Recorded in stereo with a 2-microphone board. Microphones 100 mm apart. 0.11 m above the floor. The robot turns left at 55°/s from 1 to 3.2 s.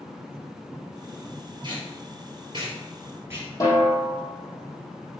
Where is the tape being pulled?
45° right (ahead or behind), 2.5 m; by 3.5 s 25° right (ahead or behind), 2.5 m.